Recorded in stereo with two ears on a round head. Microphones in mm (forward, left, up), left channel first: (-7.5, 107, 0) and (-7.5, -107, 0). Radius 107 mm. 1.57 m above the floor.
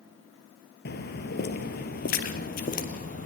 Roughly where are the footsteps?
Left.